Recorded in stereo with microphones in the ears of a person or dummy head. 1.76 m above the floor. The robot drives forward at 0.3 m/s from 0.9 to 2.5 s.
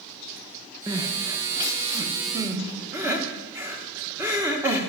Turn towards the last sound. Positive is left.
turn(degrees=-15)  # may be behind; listen again after turning